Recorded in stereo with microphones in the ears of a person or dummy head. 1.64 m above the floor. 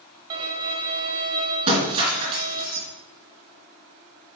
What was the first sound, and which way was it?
A violin, 25° right (ahead or behind).